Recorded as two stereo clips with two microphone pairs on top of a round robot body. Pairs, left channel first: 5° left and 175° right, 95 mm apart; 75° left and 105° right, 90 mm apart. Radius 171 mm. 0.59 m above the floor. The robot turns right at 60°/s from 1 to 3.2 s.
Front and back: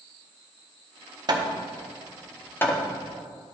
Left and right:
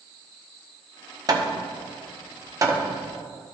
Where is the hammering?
140° right, 1.2 m; by 2.8 s 45° right, 1.2 m.